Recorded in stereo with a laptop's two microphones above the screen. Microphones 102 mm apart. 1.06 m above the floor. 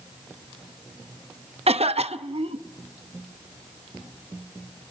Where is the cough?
80° right, 0.9 m.